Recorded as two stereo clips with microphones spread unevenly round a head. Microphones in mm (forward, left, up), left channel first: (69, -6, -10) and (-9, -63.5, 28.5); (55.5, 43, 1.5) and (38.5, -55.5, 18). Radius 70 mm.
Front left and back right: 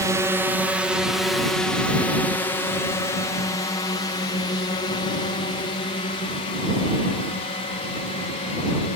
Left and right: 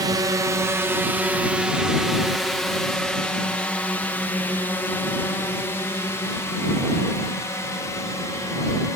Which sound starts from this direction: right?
A drone, at 0.0 s.